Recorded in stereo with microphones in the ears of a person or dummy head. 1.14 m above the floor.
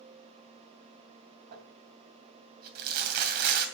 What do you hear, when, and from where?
1.5 s crumpling: 55° right (ahead or behind), 2.5 m